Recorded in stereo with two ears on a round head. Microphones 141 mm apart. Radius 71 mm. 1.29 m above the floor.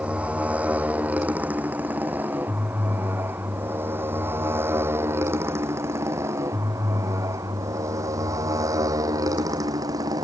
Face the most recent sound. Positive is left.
turn(degrees=-25)  # may be behind; listen again after turning